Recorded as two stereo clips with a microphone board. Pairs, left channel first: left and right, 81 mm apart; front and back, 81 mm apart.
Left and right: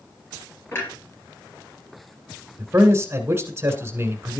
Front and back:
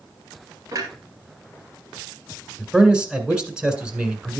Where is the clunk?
145° left, 3 m.